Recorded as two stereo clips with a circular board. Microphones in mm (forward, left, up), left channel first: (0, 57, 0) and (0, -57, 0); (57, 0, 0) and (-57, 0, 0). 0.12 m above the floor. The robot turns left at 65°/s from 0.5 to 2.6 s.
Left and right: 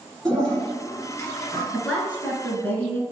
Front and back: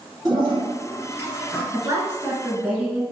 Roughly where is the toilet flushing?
Behind.